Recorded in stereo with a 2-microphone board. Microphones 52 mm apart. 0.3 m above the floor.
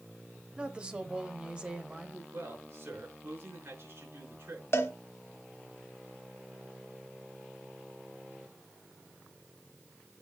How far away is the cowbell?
About 1.2 m.